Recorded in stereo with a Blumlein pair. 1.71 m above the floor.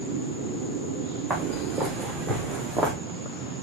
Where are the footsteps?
10° right, 6.5 m; by 2.9 s 5° right, 4 m.